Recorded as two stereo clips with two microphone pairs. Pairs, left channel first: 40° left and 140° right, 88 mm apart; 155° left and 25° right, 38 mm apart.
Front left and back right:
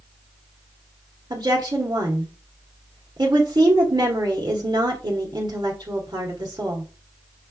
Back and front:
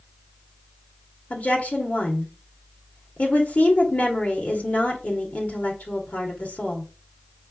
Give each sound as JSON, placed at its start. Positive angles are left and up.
{"t": 1.3, "sound": "a woman speaking", "azimuth_deg": -170, "distance_m": 1.6}